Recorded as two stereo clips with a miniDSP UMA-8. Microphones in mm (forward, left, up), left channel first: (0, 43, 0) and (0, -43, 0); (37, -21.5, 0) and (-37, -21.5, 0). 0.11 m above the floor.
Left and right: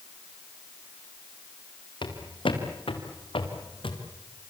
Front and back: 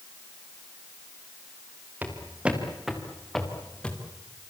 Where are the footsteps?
110° left, 4.5 m; by 4.0 s 75° left, 4 m.